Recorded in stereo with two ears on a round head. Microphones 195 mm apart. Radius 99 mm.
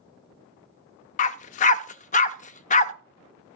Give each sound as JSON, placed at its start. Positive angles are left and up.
{"t": 1.2, "sound": "a dog barking", "side_deg": 35, "distance_m": 0.6}